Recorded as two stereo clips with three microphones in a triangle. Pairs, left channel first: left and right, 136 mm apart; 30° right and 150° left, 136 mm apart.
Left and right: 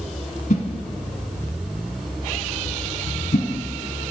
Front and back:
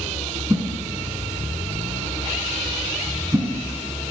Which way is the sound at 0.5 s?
85° left.